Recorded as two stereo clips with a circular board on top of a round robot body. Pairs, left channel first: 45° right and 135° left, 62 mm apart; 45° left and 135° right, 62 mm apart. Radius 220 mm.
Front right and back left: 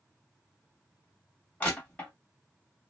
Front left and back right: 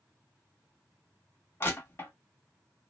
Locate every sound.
1.6 s crushing: 15° left, 1.6 m